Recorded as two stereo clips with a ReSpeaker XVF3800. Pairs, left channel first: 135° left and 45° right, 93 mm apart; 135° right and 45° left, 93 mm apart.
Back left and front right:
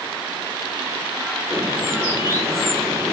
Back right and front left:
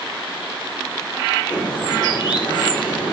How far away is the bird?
About 5 m.